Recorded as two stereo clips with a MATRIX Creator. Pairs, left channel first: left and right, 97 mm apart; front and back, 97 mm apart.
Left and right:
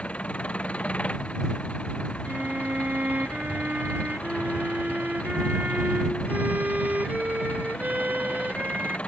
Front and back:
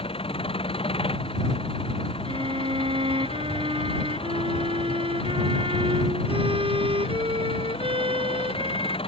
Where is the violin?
165° right.